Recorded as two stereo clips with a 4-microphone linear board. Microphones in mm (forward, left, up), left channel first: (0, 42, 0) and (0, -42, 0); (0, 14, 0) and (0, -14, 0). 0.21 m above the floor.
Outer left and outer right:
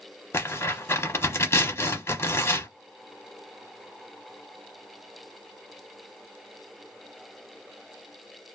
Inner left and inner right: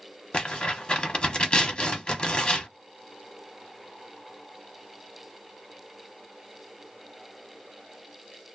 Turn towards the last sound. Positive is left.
turn(degrees=30)  # may be behind; listen again after turning